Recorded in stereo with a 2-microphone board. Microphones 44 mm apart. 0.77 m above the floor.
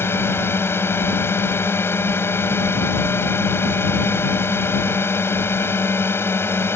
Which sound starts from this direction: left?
A drone, at 0.0 s.